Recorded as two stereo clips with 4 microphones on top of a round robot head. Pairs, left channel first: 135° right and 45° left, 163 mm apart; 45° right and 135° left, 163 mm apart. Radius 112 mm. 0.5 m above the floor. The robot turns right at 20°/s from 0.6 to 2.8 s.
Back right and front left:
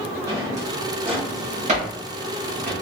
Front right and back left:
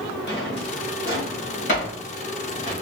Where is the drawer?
25° right, 1.7 m; by 2.7 s 20° left, 1.7 m.